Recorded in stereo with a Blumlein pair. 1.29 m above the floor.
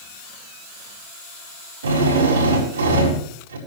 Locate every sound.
1.8 s a drill: 65° right, 4.5 m